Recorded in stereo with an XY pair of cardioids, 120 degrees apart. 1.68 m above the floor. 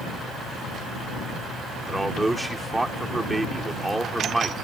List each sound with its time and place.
1.9 s a man speaking: 10° right